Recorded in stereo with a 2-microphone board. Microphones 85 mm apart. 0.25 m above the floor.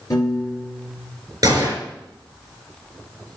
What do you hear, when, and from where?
0.1 s a piano: 45° left (ahead or behind), 2 m
1.4 s a gunshot: 40° right (ahead or behind), 3.5 m